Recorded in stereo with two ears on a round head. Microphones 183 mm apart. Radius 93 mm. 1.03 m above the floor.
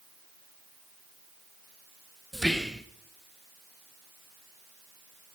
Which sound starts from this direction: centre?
Whispering, at 2.3 s.